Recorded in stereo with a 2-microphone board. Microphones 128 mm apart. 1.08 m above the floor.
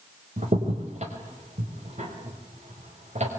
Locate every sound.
0.4 s a crack: 65° right (ahead or behind), 5.5 m